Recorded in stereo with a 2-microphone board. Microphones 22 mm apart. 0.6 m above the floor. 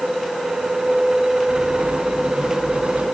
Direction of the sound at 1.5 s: 60° right (ahead or behind).